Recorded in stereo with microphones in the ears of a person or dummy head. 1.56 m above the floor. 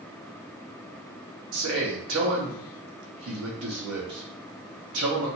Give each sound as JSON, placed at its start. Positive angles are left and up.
{"t": 1.5, "sound": "a man speaking", "side_deg": -65, "distance_m": 0.9}